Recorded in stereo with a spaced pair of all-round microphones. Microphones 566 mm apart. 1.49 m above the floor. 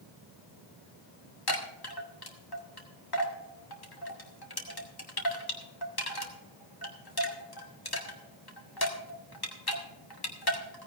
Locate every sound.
1.5 s a chime: 40° left (ahead or behind), 1.8 m